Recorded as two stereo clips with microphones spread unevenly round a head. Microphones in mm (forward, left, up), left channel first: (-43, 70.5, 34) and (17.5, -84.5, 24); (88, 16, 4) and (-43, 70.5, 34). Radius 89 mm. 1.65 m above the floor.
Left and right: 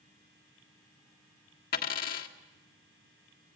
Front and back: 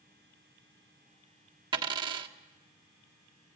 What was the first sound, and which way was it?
A dropped coin, 120° left.